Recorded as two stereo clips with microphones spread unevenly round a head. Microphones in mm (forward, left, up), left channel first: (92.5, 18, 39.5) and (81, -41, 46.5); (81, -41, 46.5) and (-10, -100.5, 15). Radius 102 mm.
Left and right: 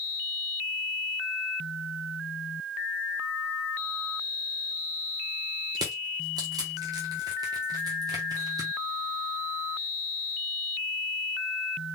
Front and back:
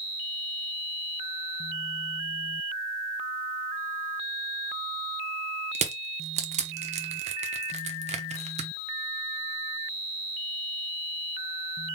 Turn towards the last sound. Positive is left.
turn(degrees=-125)